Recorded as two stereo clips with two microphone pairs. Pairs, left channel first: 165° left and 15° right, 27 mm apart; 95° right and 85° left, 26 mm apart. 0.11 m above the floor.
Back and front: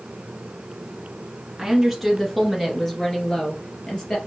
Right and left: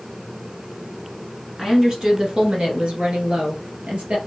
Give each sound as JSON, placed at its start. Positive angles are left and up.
{"t": 1.6, "sound": "a woman speaking", "azimuth_deg": 55, "distance_m": 1.2}